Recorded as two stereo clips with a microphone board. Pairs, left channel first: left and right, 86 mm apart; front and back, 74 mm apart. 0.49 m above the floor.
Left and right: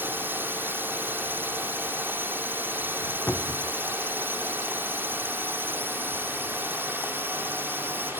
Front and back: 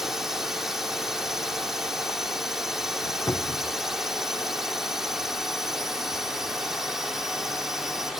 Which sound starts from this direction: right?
A drone, at 0.0 s.